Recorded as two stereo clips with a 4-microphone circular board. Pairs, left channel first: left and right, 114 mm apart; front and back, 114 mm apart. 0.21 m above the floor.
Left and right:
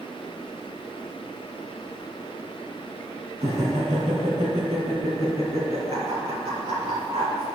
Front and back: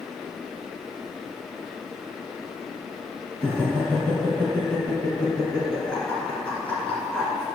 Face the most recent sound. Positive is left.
turn(degrees=-75)